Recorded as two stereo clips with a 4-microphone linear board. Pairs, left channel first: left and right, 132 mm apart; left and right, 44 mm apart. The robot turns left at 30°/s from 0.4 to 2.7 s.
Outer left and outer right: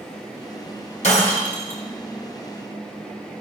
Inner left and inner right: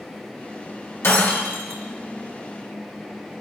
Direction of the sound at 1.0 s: 75° left (ahead or behind).